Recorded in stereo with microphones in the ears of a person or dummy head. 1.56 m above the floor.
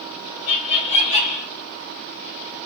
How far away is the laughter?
About 0.5 m.